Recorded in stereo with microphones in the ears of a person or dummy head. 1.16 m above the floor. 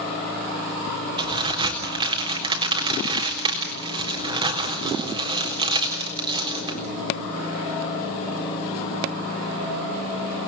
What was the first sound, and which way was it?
A crack, 20° right (ahead or behind).